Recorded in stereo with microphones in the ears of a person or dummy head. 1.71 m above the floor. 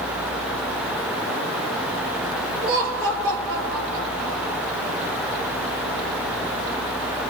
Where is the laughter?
75° right (ahead or behind), 5.5 m.